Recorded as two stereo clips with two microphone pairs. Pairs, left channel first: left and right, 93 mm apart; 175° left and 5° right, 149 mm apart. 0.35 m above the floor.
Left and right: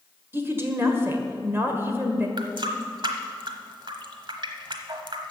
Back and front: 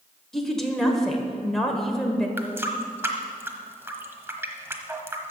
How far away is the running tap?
About 1.1 m.